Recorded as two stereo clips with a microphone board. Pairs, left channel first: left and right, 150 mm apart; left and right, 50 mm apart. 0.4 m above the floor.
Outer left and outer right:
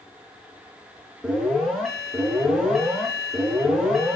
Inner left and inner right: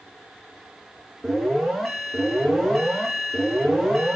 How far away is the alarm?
About 4.5 m.